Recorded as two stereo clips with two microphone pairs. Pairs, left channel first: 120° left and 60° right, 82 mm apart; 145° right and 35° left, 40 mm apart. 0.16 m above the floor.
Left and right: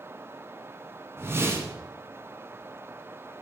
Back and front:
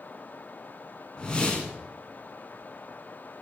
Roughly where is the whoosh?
Right.